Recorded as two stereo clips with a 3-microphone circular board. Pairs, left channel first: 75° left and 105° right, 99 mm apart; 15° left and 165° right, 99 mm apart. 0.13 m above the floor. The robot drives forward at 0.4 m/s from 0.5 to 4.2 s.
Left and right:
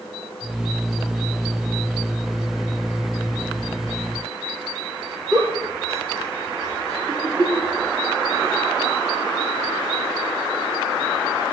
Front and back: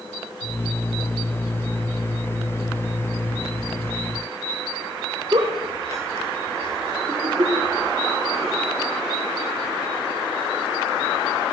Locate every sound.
5.3 s a giggle: 150° right, 4 m